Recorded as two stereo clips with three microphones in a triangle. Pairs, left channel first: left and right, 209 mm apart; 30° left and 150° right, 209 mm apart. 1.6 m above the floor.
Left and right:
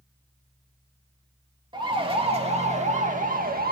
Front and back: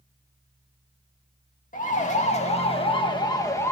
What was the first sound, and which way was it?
A siren, 20° right.